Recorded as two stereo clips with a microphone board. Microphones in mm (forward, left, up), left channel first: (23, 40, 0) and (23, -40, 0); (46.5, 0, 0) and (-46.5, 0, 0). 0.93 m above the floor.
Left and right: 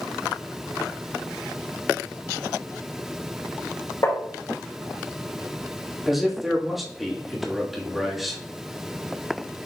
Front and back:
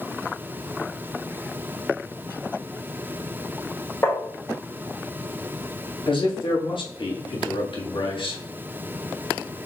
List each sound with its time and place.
4.0 s tapping: 60° left, 2.5 m
6.1 s a man speaking: straight ahead, 1.5 m